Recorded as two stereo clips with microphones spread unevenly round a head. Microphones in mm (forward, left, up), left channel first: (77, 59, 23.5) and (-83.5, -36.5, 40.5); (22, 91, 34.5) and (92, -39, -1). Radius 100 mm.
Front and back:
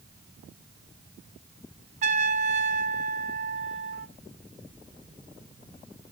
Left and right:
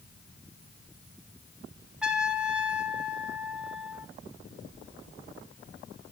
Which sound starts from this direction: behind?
A trumpet, at 2.0 s.